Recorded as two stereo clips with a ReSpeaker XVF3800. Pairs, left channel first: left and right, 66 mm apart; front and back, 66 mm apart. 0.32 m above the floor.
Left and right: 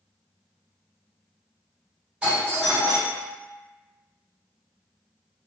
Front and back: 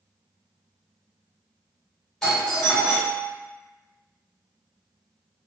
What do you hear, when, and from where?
2.2 s a doorbell: 55° right, 2.0 m